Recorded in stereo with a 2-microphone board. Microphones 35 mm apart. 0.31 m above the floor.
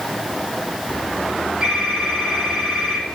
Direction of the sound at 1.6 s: 15° right (ahead or behind).